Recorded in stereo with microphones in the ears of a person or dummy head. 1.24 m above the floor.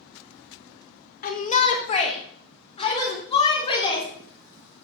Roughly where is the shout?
Left.